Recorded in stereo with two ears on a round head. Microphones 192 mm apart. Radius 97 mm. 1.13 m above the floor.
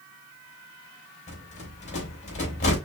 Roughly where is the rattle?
Left.